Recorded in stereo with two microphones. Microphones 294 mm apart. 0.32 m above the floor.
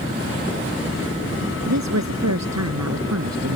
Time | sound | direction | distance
1.7 | a woman speaking | 65° right (ahead or behind) | ?